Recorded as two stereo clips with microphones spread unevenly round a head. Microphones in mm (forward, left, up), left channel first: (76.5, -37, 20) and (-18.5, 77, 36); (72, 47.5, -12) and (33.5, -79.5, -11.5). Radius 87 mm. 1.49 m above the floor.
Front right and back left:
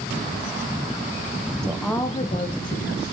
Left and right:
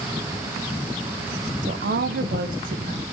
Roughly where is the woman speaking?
Behind right.